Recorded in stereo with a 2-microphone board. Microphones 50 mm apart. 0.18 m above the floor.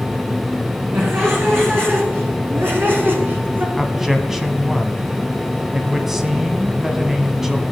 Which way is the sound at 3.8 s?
5° right (ahead or behind).